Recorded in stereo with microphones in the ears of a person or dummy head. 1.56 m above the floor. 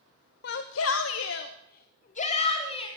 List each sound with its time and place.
0.4 s a shout: 60° left (ahead or behind), 1.1 m; by 2.9 s 30° left (ahead or behind), 2.5 m